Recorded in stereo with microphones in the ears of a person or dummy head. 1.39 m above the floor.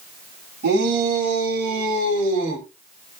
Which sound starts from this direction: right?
A shout, at 0.6 s.